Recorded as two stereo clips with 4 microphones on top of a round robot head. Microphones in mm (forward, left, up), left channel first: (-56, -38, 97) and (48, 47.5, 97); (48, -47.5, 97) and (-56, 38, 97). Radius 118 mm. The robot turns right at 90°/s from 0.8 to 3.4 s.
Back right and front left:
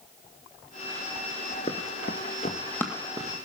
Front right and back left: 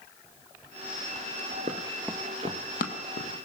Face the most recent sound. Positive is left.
turn(degrees=-10)